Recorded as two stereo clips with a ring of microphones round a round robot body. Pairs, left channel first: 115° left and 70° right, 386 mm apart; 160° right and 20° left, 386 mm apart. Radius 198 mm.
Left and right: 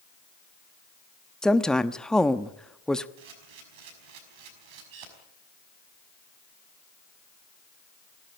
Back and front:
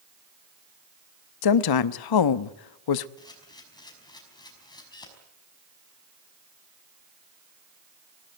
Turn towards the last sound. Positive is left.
turn(degrees=-80)